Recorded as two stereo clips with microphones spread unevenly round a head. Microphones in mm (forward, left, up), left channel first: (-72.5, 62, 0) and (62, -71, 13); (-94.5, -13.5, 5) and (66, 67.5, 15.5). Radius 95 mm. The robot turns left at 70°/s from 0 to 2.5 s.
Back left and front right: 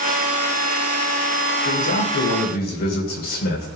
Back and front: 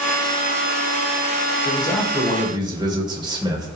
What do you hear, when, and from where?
1.6 s a man speaking: 150° left, 4.5 m; by 3.7 s 95° left, 4.5 m